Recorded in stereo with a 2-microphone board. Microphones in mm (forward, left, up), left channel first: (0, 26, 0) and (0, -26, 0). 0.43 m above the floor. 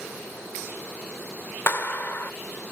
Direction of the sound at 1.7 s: 40° left (ahead or behind).